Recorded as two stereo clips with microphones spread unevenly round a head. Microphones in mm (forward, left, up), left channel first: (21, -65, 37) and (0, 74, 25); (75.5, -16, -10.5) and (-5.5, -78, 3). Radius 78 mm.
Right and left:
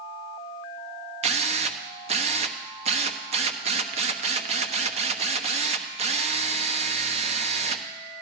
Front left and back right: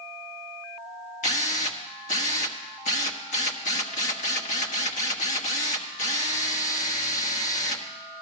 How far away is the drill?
About 1.1 m.